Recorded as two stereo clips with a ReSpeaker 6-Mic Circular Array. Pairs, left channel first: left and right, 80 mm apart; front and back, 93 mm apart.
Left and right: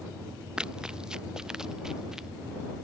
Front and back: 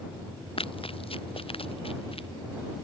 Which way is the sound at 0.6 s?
10° right.